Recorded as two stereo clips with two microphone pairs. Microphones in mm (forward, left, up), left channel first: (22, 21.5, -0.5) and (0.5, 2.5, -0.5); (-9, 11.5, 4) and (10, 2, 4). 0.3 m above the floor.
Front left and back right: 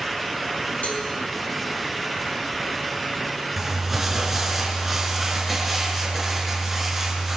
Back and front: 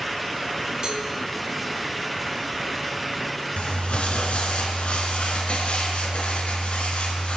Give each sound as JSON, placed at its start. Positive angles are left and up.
{"t": 0.8, "sound": "a cowbell", "azimuth_deg": 20, "distance_m": 3.0}
{"t": 3.6, "sound": "crumpling", "azimuth_deg": 140, "distance_m": 4.0}